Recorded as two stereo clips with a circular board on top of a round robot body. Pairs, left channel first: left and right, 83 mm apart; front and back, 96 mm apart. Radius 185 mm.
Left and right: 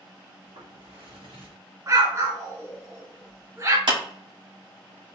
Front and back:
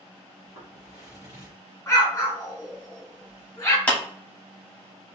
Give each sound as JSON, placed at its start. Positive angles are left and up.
{"t": 0.4, "sound": "footsteps", "azimuth_deg": -110, "distance_m": 1.5}
{"t": 1.9, "sound": "an explosion", "azimuth_deg": -55, "distance_m": 1.9}
{"t": 3.9, "sound": "a clap", "azimuth_deg": -75, "distance_m": 2.5}